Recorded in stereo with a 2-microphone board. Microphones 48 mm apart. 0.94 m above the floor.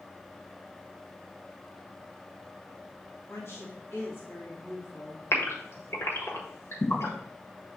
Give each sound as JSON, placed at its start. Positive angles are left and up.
{"t": 3.3, "sound": "a woman speaking", "side_deg": 60, "distance_m": 1.6}
{"t": 5.3, "sound": "a gasp", "side_deg": 65, "distance_m": 1.4}